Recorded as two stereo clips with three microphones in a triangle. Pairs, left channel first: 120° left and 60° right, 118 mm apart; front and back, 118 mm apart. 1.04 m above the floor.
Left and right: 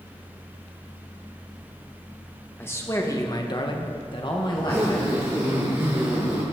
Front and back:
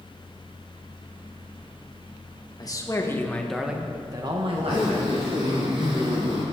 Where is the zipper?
130° right, 5.5 m.